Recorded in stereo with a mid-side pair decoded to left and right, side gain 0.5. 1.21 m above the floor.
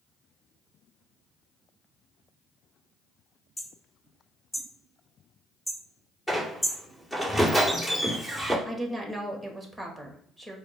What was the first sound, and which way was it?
Hammering, 10° left.